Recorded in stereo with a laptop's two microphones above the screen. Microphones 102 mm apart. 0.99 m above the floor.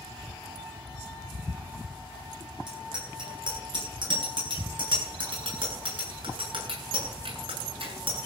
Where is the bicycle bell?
50° right (ahead or behind), 9.5 m; by 8.2 s 60° right (ahead or behind), 7.5 m.